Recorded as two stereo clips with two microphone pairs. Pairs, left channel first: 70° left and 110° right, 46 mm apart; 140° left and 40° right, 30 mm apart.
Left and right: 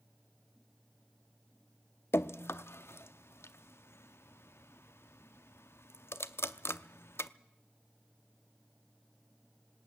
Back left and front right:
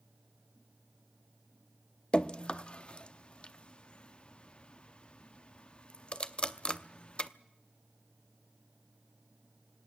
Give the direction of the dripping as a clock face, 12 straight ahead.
9 o'clock.